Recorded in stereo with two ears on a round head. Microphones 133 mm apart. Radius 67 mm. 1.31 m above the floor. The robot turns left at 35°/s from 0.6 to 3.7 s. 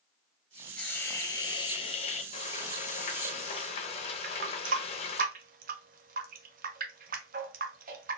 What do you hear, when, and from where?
0.8 s a hiss: 170° left, 0.7 m; by 2.2 s 120° left, 0.7 m
2.3 s frying: 110° left, 0.6 m; by 5.2 s 65° left, 0.6 m
4.2 s a running tap: 60° right (ahead or behind), 0.6 m